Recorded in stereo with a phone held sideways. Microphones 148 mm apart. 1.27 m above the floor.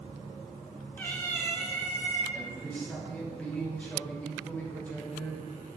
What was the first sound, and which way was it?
A cat meowing, 15° left (ahead or behind).